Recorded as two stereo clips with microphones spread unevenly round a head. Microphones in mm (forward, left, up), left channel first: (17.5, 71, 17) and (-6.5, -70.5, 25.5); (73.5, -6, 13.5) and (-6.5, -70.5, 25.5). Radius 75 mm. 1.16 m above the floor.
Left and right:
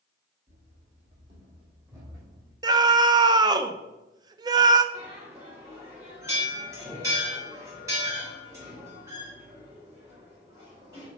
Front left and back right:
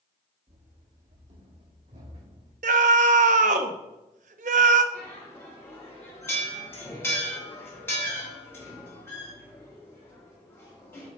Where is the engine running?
No engine running in this recording.